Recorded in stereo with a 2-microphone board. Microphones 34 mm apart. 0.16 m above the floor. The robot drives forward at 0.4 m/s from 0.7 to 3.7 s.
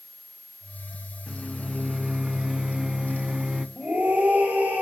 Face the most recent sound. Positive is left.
turn(degrees=-75)  # may be behind; listen again after turning